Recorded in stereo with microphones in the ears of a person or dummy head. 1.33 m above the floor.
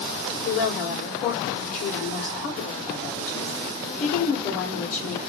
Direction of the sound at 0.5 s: 60° left (ahead or behind).